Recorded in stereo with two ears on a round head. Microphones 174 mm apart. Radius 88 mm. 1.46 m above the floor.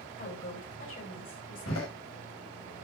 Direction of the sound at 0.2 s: 45° left (ahead or behind).